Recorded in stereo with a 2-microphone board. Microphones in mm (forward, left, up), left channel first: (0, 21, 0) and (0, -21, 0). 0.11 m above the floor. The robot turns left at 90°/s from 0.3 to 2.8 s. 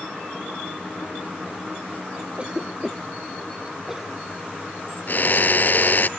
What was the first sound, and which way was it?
A cough, 30° right (ahead or behind).